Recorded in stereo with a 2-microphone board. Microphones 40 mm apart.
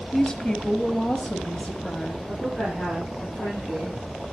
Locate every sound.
0.1 s a woman speaking: 15° left (ahead or behind), 1.3 m; by 2.2 s 35° left (ahead or behind), 1.3 m
2.3 s a woman speaking: 60° left (ahead or behind), 9.5 m